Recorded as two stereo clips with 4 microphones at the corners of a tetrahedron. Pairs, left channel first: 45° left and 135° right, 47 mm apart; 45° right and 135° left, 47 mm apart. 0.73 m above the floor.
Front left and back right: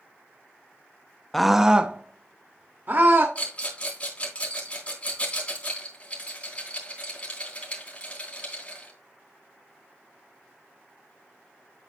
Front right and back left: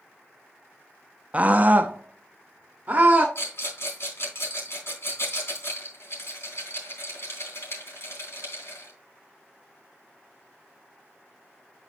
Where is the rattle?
15° right, 3.5 m.